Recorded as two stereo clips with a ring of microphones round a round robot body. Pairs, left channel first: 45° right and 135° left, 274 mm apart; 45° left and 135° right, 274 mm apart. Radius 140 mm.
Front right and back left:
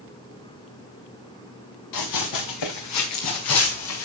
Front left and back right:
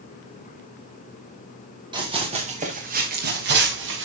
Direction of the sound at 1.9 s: 60° right.